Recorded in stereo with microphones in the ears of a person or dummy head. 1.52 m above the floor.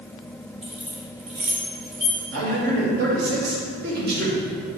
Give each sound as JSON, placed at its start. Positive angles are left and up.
{"t": 0.6, "sound": "keys jangling", "side_deg": -35, "distance_m": 1.0}
{"t": 2.3, "sound": "a man speaking", "side_deg": -60, "distance_m": 2.0}